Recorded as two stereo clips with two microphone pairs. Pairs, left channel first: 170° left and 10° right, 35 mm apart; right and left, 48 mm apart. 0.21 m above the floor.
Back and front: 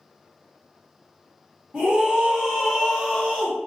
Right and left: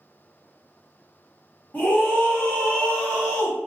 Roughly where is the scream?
Ahead right.